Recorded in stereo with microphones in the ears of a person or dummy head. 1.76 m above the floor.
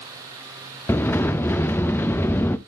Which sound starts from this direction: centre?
A sliding door, at 0.9 s.